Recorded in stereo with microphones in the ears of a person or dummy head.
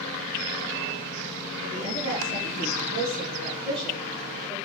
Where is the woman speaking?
90° right, 1.7 m; by 4.5 s centre (ahead or behind), 1.4 m.